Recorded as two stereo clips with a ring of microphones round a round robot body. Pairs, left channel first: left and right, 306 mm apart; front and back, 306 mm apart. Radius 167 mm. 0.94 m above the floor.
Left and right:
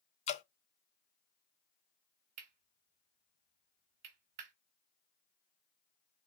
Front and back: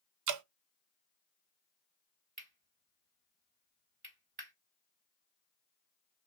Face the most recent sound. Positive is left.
turn(degrees=-115)